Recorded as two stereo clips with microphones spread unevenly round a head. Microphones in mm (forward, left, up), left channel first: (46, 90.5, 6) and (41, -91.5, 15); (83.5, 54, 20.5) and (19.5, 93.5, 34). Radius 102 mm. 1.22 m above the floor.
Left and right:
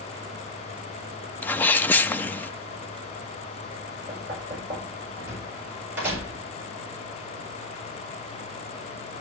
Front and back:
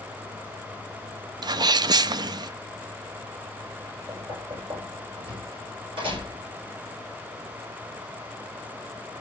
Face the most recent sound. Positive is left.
turn(degrees=-170)